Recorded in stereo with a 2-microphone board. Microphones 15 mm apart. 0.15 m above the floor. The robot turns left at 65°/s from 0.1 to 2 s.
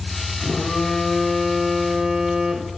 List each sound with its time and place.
0.4 s a phone buzzing: 90° left, 2 m; by 2.7 s 15° right, 2 m